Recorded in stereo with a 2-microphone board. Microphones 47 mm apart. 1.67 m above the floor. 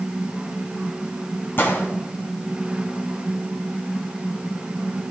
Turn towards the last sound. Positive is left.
turn(degrees=55)  # may be behind; listen again after turning